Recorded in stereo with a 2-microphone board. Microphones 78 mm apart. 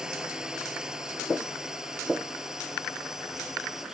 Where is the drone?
10° right (ahead or behind); by 3.9 s 5° right (ahead or behind).